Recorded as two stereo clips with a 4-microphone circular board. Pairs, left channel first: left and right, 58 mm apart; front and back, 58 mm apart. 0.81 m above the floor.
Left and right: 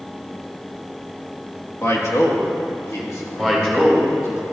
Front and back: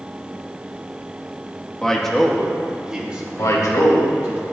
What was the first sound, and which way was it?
A man speaking, 75° left.